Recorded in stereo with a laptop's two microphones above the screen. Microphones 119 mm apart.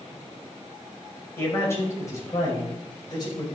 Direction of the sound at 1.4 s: 20° left (ahead or behind).